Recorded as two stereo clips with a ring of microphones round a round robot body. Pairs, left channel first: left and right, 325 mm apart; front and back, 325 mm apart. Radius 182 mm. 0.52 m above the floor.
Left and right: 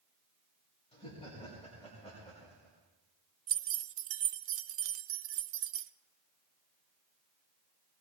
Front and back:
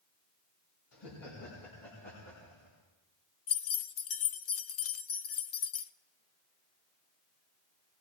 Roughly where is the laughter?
Ahead.